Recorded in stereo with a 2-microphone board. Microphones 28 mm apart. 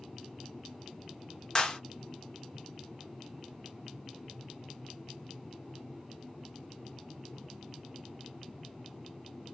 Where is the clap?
25° left (ahead or behind), 0.7 m.